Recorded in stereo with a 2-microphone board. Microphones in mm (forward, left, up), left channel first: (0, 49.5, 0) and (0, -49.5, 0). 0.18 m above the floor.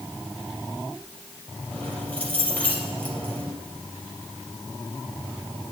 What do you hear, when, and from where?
1.7 s keys jangling: 15° left (ahead or behind), 3.5 m